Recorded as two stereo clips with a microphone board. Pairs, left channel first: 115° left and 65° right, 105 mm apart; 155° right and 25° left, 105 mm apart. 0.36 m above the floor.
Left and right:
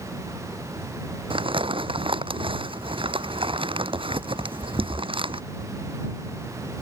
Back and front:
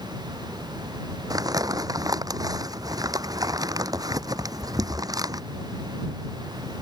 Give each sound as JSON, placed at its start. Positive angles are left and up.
{"t": 1.3, "sound": "crumpling", "azimuth_deg": -30}